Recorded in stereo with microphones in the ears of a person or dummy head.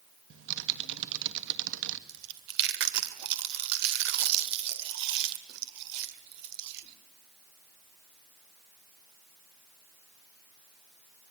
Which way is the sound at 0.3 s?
75° right (ahead or behind).